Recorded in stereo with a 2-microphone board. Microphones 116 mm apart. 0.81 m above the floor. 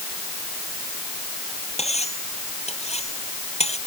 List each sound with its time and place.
1.8 s cutlery clinking: 65° left (ahead or behind)